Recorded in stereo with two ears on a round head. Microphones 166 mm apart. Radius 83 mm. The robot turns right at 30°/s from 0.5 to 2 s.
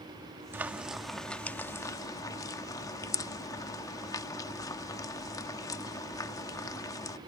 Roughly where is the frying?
Centre.